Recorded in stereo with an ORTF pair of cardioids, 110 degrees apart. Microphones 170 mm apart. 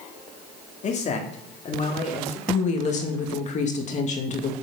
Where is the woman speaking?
45° left, 2.5 m.